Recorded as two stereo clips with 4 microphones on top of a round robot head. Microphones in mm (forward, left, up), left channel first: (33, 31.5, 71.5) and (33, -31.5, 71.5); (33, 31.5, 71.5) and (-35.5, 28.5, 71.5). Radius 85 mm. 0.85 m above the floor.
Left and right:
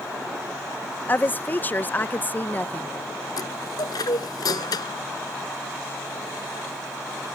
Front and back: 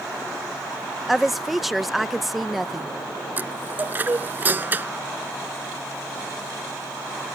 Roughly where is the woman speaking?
Left.